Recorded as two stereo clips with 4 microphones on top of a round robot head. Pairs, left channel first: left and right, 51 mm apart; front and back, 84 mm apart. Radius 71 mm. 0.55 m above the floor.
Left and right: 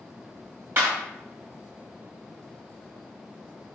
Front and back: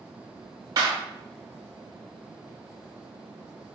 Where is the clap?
130° right, 3.5 m.